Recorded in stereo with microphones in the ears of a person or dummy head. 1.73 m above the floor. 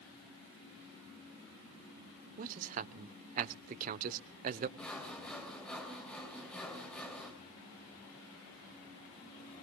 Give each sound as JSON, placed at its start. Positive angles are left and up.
{"t": 2.4, "sound": "a man speaking", "side_deg": -45, "distance_m": 0.9}
{"t": 4.8, "sound": "sawing", "side_deg": 5, "distance_m": 3.0}